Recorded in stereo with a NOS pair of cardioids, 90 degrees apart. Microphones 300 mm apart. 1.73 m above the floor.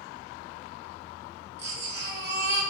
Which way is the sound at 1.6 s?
40° right.